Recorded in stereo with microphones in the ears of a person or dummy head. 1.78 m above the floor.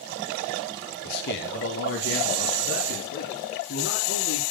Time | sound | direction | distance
1.1 | a man speaking | 60° left (ahead or behind) | 1.3 m